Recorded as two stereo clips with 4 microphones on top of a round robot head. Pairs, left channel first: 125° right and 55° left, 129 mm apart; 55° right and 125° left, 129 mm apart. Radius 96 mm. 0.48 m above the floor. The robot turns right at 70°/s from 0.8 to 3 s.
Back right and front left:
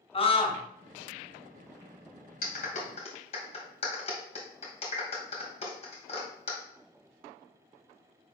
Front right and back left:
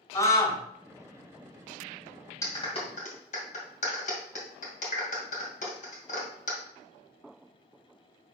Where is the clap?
125° right, 2.5 m; by 6.6 s 85° right, 2.5 m.